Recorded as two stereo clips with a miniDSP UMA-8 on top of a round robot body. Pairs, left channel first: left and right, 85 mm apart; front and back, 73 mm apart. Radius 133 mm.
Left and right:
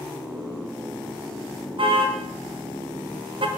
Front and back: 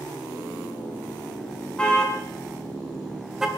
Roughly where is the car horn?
Right.